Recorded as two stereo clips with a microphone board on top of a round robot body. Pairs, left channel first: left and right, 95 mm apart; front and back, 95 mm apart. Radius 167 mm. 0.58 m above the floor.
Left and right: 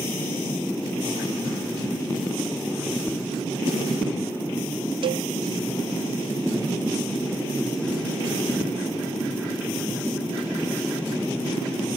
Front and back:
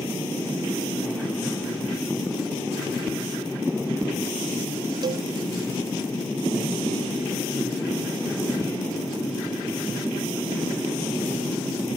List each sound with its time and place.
5.0 s a cowbell: 130° right